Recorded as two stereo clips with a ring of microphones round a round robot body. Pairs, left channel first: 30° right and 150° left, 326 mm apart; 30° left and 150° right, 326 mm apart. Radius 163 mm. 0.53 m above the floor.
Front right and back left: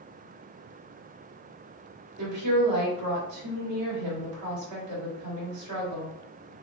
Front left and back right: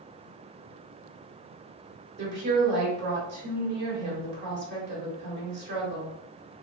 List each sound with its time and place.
2.2 s a woman speaking: 160° left, 1.7 m